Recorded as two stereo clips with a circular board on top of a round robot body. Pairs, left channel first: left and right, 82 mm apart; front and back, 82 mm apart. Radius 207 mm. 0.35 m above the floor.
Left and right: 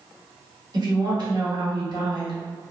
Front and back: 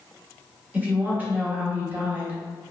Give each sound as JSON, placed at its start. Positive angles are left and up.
{"t": 0.7, "sound": "a woman speaking", "azimuth_deg": -110, "distance_m": 1.5}